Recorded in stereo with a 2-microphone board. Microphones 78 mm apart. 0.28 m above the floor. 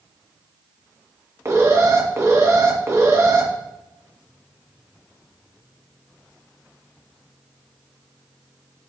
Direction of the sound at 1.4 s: 40° right (ahead or behind).